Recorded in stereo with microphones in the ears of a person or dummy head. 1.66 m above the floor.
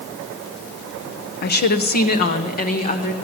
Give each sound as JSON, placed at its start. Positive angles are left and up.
{"t": 1.4, "sound": "a woman speaking", "side_deg": 55, "distance_m": 0.7}